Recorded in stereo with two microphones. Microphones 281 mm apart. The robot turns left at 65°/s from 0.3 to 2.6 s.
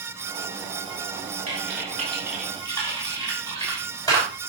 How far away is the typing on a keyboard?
About 6.5 m.